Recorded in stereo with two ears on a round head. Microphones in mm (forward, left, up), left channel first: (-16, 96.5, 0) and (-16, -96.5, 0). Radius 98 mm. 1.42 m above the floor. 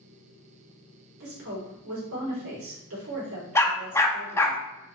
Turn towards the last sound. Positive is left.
turn(degrees=10)  # may be behind; listen again after turning